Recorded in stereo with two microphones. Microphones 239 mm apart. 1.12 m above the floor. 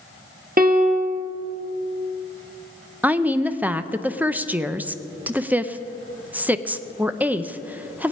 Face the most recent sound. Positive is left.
turn(degrees=-5)  # may be behind; listen again after turning